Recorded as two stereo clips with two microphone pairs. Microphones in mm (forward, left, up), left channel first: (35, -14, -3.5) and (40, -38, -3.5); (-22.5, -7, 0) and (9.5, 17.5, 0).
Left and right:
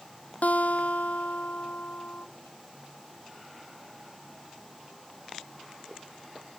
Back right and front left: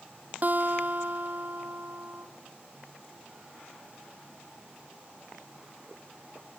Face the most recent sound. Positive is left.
turn(degrees=85)